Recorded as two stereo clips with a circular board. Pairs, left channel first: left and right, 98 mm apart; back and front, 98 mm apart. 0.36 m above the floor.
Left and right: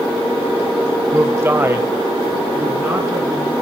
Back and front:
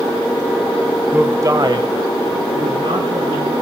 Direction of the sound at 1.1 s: 65° right.